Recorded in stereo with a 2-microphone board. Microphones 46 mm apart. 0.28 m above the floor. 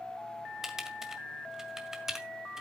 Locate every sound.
0.6 s typing on a keyboard: 10° right (ahead or behind), 1.7 m